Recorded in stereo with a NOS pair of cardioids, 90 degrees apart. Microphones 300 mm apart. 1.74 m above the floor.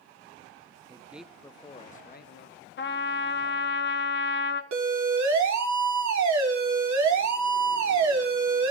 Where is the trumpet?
35° left, 1.6 m.